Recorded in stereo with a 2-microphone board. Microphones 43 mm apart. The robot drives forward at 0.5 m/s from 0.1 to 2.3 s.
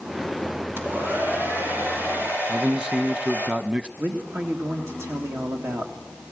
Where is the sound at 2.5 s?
20° right (ahead or behind), 1.0 m.